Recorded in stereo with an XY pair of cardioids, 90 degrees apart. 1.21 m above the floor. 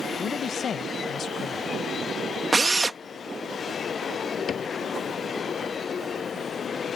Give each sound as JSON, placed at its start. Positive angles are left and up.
{"t": 0.2, "sound": "a man speaking", "azimuth_deg": 60}
{"t": 2.5, "sound": "a drill", "azimuth_deg": -25}
{"t": 4.5, "sound": "a cupboard door", "azimuth_deg": 55}